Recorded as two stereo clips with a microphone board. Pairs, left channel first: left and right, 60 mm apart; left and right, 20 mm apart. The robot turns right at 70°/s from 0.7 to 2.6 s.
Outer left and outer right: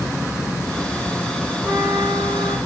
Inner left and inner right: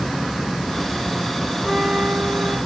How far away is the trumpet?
About 0.7 m.